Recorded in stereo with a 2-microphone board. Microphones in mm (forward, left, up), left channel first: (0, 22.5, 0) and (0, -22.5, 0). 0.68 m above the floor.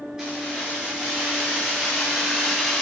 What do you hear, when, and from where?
0.2 s keys jangling: 20° right (ahead or behind), 6.5 m; by 2.8 s 5° right (ahead or behind), 4.5 m